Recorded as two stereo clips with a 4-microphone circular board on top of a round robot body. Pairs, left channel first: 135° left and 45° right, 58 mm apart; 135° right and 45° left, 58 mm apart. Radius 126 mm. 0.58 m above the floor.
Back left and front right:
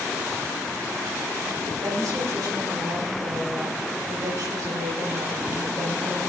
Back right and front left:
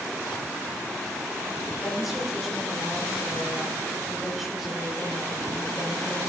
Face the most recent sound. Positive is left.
turn(degrees=-40)